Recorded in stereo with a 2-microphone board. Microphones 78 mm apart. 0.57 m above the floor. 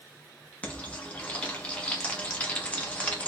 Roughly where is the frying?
Centre.